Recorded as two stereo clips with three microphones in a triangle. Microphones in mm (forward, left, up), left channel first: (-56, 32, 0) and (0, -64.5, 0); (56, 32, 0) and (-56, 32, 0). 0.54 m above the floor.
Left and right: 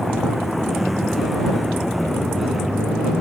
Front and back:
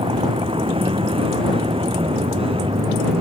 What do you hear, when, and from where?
0.0 s a vehicle: 150° right